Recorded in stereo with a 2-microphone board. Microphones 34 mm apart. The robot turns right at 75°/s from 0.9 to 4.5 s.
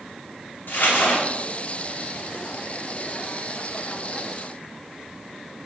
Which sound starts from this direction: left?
Crumpling, at 0.7 s.